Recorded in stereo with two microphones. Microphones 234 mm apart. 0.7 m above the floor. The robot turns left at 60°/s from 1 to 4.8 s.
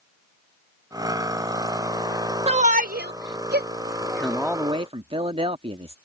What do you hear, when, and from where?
2.5 s a shout: 25° right (ahead or behind); by 3.7 s 40° right (ahead or behind)
4.0 s a man speaking: 20° left; by 6.0 s 30° right